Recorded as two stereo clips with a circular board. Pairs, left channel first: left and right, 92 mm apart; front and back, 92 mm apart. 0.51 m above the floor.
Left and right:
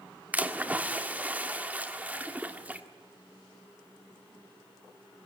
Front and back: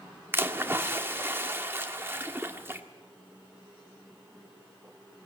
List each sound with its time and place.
0.3 s a splash: 145° right, 1.5 m